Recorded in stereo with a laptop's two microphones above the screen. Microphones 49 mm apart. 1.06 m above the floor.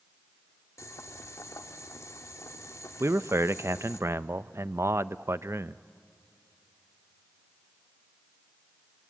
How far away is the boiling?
About 1.6 m.